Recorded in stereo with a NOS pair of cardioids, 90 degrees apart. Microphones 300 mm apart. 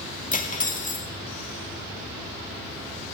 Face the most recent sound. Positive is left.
turn(degrees=25)